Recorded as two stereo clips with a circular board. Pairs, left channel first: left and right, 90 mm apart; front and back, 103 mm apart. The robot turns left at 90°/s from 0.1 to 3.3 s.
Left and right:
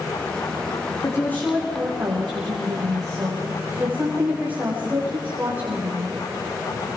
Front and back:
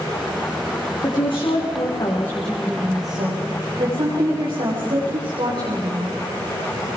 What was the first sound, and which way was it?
A woman speaking, 50° left.